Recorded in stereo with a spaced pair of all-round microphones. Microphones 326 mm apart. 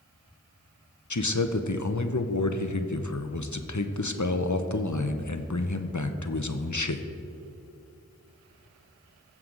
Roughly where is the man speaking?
Left.